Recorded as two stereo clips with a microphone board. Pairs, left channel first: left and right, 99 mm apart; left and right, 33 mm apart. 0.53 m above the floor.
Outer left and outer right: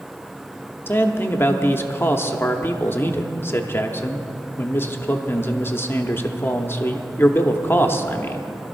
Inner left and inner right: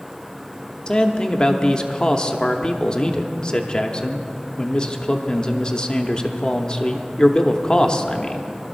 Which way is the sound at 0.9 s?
25° left (ahead or behind).